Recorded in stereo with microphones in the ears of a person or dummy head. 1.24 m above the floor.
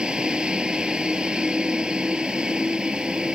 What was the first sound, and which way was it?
A vehicle, centre (ahead or behind).